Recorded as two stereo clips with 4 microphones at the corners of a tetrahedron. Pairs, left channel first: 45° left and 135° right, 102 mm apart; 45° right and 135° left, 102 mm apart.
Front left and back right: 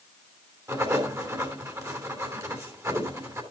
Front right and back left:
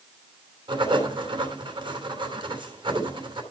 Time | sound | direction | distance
0.7 | writing | 170° left | 3 m